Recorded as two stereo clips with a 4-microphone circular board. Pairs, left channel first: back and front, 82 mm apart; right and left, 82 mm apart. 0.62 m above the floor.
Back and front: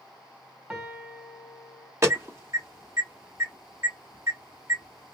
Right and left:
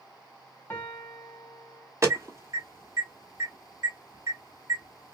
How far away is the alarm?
About 1.2 m.